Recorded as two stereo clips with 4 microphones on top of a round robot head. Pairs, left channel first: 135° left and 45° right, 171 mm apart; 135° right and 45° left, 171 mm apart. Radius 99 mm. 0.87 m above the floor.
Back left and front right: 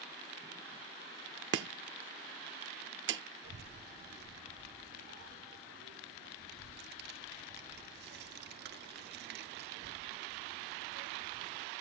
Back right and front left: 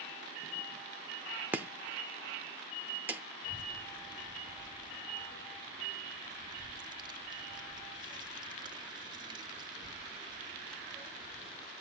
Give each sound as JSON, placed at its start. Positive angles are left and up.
{"t": 1.5, "sound": "chopping", "azimuth_deg": -30, "distance_m": 0.6}
{"t": 3.4, "sound": "a child speaking", "azimuth_deg": -20, "distance_m": 1.1}